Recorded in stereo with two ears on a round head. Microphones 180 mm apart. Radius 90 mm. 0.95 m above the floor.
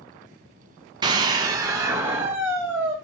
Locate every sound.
1.0 s a scream: 20° right (ahead or behind), 0.6 m; by 2.9 s 10° right (ahead or behind), 1.5 m